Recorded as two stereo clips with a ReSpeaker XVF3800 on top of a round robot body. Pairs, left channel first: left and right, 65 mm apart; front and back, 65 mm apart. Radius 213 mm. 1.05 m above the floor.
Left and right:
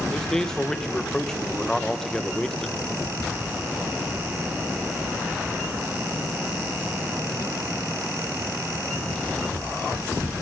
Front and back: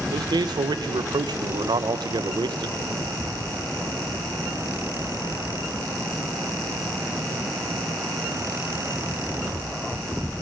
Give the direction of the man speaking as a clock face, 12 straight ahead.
6 o'clock.